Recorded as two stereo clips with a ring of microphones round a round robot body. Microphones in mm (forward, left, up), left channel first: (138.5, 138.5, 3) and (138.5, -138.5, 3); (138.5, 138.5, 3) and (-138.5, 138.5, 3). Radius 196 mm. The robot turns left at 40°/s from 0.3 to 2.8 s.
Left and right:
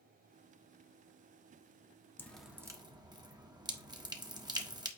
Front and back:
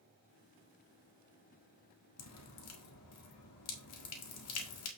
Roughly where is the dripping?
Ahead.